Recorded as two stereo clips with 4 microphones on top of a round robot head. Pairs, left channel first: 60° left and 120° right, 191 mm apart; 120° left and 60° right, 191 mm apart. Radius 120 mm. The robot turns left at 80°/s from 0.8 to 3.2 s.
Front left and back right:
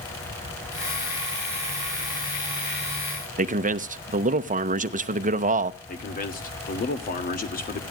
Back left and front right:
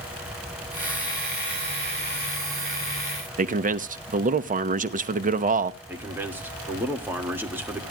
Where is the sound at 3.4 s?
90° right, 0.9 m.